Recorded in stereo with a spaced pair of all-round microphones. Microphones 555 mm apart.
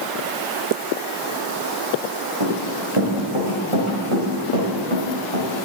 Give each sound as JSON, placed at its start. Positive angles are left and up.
{"t": 2.4, "sound": "running footsteps", "side_deg": -65, "distance_m": 4.0}